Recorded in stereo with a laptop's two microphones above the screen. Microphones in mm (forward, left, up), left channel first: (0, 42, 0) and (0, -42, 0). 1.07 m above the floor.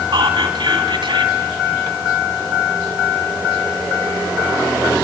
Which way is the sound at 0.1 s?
80° right.